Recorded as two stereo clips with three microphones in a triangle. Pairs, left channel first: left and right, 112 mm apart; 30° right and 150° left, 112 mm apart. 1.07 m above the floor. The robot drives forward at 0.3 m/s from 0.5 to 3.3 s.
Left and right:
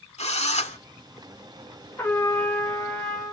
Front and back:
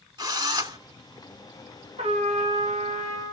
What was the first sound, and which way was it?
A drill, 100° left.